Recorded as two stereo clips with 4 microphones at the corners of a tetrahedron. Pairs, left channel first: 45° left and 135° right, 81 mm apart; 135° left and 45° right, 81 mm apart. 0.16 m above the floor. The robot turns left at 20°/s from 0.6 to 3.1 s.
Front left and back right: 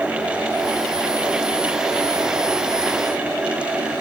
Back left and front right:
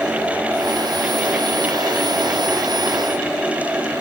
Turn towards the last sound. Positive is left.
No sound to turn to.